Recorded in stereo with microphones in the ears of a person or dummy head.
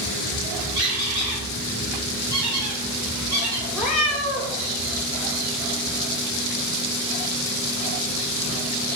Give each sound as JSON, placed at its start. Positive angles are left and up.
{"t": 0.8, "sound": "a squeak", "side_deg": -15, "distance_m": 1.1}
{"t": 3.7, "sound": "a cat meowing", "side_deg": 0, "distance_m": 1.3}